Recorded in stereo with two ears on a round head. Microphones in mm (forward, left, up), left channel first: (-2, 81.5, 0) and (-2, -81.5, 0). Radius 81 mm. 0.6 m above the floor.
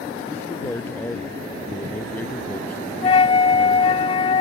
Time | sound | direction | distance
0.3 | a man speaking | 10° left (ahead or behind) | ?
3.0 | a flute | 30° left (ahead or behind) | ?